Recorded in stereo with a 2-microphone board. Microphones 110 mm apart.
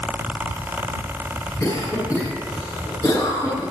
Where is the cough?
30° left (ahead or behind), 9 m.